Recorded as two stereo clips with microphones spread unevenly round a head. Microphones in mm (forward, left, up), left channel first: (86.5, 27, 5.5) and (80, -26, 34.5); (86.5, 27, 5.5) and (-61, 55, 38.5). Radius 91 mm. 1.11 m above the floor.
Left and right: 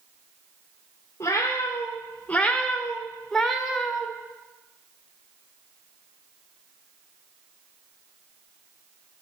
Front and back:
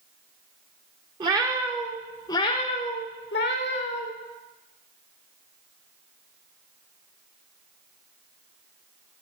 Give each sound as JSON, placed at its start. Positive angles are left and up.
{"t": 1.2, "sound": "a cat meowing", "azimuth_deg": 160, "distance_m": 0.8}